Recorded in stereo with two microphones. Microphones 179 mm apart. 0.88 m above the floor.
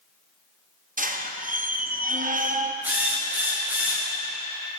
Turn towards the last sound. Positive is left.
turn(degrees=-10)  # may be behind; listen again after turning